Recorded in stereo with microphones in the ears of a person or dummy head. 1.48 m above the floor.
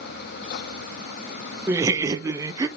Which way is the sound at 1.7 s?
20° right (ahead or behind).